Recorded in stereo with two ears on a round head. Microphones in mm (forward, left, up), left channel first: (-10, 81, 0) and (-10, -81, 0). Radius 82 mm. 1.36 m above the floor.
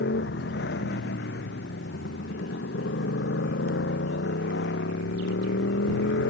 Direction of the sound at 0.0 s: 70° left (ahead or behind).